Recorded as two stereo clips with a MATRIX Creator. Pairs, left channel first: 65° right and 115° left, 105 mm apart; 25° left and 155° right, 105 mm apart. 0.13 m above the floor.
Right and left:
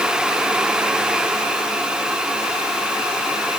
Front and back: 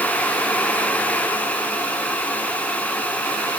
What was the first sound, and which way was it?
Only background noise.